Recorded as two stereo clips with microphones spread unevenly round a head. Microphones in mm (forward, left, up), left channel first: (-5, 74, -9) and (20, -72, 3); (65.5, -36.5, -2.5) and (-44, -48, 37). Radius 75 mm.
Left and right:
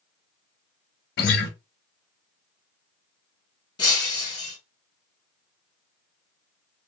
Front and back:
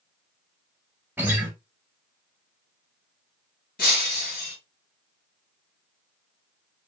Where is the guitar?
120° left, 0.7 m.